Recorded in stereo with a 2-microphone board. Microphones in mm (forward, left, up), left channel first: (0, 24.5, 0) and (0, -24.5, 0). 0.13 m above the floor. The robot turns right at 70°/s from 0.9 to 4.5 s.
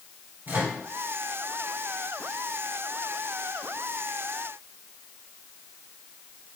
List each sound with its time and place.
0.5 s a microwave: 35° right (ahead or behind), 1.5 m